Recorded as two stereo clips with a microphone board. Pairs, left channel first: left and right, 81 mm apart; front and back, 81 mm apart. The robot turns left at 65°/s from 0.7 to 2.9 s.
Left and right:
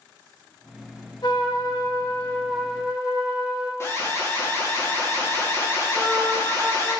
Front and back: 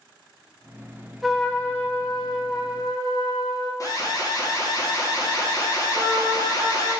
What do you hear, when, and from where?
1.2 s a trumpet: 95° left, 1.1 m; by 3.7 s 15° right, 1.1 m
3.8 s an alarm: 35° left, 1.7 m
5.9 s a trumpet: 165° right, 1.7 m